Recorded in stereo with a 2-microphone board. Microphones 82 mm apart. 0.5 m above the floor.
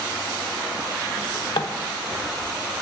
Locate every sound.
1.2 s a drawer: 80° left, 0.5 m